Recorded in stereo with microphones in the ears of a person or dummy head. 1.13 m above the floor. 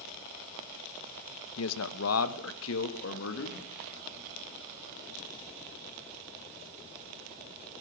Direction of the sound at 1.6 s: 80° left.